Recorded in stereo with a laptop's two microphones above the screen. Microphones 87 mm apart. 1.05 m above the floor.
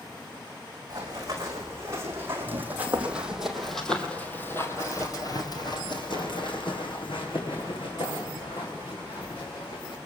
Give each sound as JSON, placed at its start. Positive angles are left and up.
{"t": 0.9, "sound": "running footsteps", "side_deg": -40, "distance_m": 5.0}